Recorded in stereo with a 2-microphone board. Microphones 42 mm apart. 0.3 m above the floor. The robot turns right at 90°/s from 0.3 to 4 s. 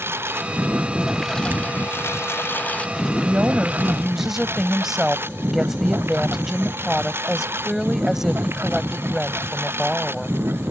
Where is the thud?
50° right (ahead or behind); by 1.9 s 65° right (ahead or behind).